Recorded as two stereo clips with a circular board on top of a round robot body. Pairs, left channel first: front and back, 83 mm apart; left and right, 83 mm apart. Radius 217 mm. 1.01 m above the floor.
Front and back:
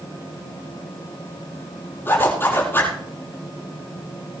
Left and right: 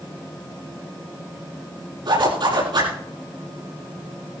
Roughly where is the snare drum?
No snare drum in this recording.